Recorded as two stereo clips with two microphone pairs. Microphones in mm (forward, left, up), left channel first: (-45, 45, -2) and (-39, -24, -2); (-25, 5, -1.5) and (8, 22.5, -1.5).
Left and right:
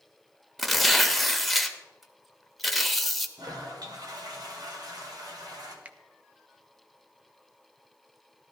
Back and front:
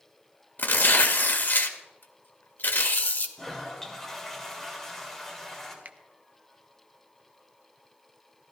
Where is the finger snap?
20° right, 0.6 m.